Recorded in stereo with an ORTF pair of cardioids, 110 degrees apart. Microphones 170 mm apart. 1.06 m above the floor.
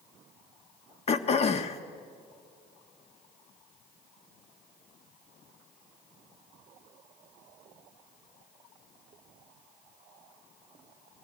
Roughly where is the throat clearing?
Ahead left.